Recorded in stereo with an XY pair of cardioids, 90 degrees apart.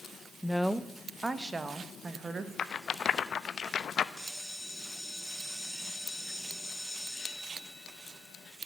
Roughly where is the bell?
Ahead.